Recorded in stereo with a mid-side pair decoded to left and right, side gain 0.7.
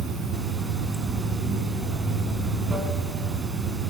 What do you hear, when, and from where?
0.0 s running water: 25° right, 3 m